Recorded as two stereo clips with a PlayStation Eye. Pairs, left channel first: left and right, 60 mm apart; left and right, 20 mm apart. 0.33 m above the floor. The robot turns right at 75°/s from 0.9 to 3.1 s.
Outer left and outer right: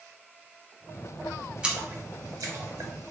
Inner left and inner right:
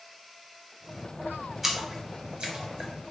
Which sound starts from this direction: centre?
A splash, at 1.6 s.